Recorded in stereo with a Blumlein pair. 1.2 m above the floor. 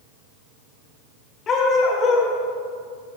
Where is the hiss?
I don't hear a hiss.